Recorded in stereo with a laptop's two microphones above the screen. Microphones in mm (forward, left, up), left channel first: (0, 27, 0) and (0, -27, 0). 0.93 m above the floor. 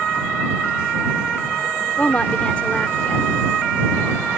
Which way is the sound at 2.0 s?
25° left (ahead or behind).